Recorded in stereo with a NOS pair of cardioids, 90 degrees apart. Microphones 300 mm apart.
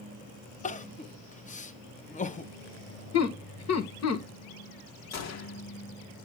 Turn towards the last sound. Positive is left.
turn(degrees=65)